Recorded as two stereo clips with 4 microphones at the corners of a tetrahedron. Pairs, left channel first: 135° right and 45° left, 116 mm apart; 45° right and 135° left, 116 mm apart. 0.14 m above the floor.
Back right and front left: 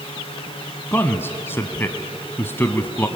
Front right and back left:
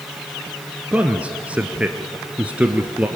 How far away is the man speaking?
About 1.1 m.